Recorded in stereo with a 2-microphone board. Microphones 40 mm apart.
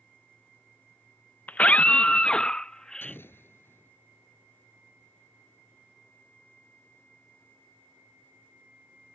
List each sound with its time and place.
1.5 s a scream: 40° left (ahead or behind); by 3.2 s 15° left (ahead or behind)
3.0 s an explosion: 65° left (ahead or behind)